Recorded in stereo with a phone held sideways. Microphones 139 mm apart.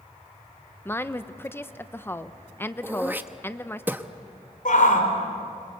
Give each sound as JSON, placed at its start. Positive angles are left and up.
{"t": 0.8, "sound": "a woman speaking", "side_deg": 15, "distance_m": 0.8}
{"t": 2.8, "sound": "throat clearing", "side_deg": -15, "distance_m": 0.9}
{"t": 4.7, "sound": "a shout", "side_deg": 70, "distance_m": 4.5}